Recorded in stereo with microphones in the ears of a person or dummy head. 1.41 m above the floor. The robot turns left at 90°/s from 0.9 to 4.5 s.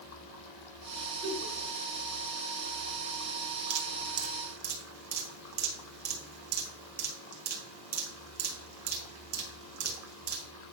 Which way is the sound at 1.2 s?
30° right (ahead or behind).